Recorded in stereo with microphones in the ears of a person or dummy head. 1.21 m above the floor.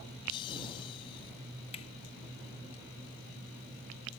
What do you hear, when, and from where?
0.3 s laughter: 25° left (ahead or behind); by 1.3 s 30° left (ahead or behind)
1.7 s a finger snap: 35° left (ahead or behind)